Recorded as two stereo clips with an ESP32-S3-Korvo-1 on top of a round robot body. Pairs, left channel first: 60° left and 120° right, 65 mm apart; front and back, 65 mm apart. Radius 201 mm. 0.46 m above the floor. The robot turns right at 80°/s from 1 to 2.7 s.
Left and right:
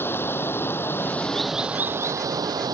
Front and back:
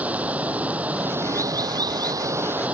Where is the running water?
110° left; by 2.8 s 110° right.